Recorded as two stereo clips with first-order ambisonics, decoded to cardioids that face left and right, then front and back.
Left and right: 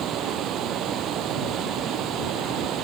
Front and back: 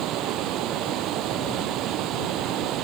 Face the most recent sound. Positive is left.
turn(degrees=-140)